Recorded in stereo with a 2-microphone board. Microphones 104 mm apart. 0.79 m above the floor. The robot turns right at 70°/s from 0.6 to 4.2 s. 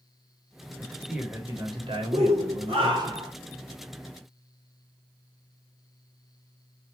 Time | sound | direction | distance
0.8 | a man speaking | 160° left | 1.4 m
2.1 | a shout | 120° right | 1.3 m